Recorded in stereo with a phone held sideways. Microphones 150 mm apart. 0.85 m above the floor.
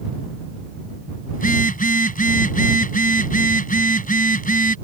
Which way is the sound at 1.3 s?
65° left (ahead or behind).